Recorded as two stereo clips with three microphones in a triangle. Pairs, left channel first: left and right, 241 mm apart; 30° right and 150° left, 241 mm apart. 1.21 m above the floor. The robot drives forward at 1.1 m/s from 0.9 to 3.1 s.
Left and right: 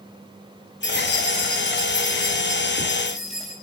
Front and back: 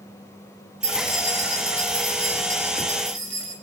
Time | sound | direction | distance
0.8 | keys jangling | 130° left | 3 m